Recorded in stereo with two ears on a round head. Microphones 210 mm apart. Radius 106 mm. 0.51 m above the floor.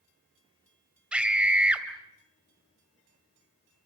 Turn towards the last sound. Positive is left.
turn(degrees=-5)  # may be behind; listen again after turning